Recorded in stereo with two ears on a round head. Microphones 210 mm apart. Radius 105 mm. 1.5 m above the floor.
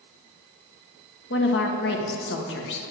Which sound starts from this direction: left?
A woman speaking, at 1.3 s.